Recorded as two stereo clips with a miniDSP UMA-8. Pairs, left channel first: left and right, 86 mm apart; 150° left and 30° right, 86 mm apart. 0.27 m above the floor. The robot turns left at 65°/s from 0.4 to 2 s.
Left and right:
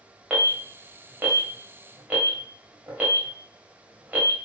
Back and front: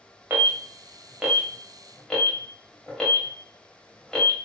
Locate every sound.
0.3 s an alarm: 30° right, 1.3 m; by 4.3 s 135° right, 1.3 m